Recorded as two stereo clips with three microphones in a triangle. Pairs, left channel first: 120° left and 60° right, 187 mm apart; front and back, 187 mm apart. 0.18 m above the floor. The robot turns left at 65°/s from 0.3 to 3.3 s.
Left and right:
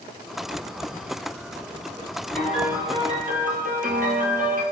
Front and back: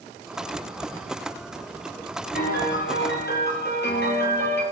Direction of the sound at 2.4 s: 40° left.